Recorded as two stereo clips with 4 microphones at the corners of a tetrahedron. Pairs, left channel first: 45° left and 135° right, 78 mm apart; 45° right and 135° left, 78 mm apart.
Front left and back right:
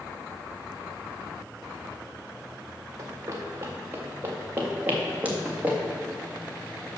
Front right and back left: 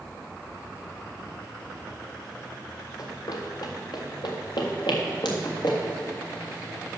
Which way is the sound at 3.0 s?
85° right.